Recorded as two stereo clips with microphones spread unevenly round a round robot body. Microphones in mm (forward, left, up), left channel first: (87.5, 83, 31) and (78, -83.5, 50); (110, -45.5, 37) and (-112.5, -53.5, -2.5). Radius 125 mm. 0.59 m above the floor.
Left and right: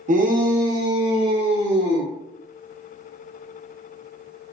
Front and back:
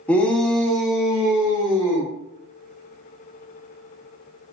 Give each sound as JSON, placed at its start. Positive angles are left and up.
{"t": 0.1, "sound": "a shout", "azimuth_deg": -90, "distance_m": 0.7}